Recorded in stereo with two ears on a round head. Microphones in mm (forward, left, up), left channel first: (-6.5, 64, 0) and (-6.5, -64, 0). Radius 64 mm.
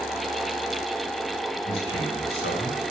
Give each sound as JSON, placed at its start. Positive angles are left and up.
{"t": 1.6, "sound": "a man speaking", "side_deg": 80, "distance_m": 6.5}